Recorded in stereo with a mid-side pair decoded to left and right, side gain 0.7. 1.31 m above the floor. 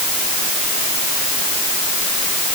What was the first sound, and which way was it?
Only background noise.